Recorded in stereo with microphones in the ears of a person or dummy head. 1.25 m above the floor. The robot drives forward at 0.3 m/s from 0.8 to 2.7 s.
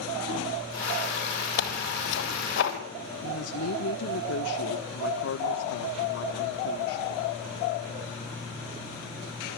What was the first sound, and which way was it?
Tearing paper, 65° left (ahead or behind).